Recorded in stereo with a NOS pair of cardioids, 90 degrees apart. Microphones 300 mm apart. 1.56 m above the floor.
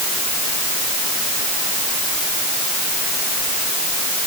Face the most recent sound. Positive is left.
No sound to turn to.